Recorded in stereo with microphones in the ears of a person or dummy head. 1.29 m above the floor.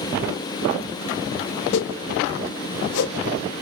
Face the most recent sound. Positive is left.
turn(degrees=75)  # may be behind; listen again after turning